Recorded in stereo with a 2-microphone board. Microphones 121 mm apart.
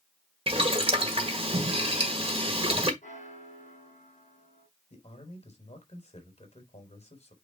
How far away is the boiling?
About 1.5 m.